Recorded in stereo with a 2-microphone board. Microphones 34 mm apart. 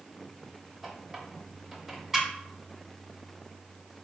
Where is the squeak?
10° right (ahead or behind), 0.8 m.